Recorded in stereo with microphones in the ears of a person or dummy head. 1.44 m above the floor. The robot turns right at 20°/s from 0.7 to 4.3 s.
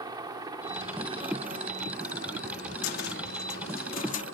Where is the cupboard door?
75° left (ahead or behind); by 4.2 s 45° left (ahead or behind).